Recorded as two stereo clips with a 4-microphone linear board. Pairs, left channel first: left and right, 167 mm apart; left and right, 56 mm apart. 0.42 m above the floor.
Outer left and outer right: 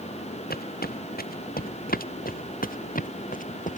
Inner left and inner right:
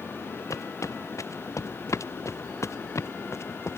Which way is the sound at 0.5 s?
75° left (ahead or behind).